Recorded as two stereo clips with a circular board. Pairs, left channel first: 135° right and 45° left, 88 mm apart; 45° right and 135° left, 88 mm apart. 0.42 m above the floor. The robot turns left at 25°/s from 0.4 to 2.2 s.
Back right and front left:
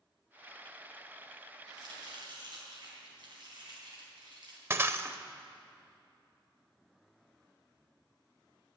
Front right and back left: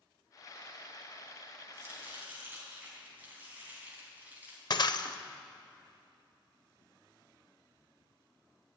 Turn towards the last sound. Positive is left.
turn(degrees=-15)